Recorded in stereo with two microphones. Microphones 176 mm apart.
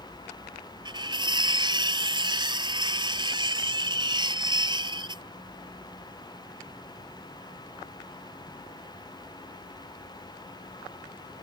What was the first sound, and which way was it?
Cutlery clinking, 25° right (ahead or behind).